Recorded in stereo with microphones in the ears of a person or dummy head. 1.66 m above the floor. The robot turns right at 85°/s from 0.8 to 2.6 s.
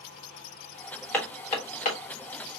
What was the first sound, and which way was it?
Hammering, 10° left (ahead or behind).